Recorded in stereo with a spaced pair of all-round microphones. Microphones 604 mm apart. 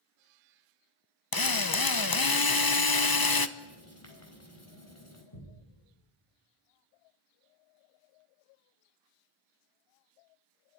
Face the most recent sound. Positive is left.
turn(degrees=50)  # may be behind; listen again after turning